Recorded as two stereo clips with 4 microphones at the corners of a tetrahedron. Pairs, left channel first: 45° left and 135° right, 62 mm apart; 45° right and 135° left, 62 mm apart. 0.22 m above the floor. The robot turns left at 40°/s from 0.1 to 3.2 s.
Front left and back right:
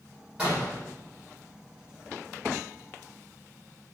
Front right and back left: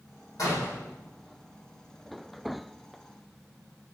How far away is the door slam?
About 6 m.